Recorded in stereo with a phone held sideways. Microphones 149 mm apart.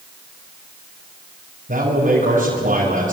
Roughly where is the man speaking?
Right.